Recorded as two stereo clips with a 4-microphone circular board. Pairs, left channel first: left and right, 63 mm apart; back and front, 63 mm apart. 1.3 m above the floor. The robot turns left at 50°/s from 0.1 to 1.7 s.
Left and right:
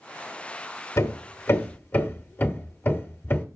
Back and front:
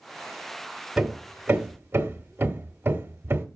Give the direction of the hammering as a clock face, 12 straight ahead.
9 o'clock.